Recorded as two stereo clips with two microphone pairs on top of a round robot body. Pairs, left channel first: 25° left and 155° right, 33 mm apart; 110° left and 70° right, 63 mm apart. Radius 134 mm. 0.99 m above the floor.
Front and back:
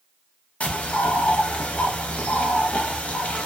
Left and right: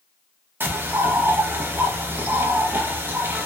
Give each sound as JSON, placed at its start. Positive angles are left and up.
{"t": 0.6, "sound": "a bird", "azimuth_deg": -15, "distance_m": 0.8}